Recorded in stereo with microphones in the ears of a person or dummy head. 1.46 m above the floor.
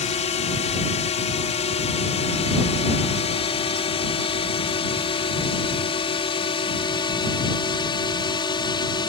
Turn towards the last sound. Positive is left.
turn(degrees=25)  # may be behind; listen again after turning